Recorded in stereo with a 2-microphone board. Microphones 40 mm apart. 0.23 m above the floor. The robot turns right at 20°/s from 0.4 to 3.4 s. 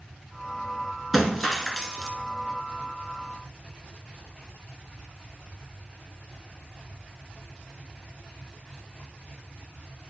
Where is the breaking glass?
5° right (ahead or behind), 1.5 m; by 2.1 s 10° left (ahead or behind), 1.5 m.